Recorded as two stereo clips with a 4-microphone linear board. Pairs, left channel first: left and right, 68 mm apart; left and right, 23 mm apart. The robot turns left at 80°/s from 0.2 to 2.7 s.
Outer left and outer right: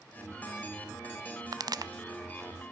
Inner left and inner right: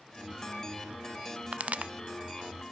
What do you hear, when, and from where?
1.5 s a pop: 60° right (ahead or behind), 0.6 m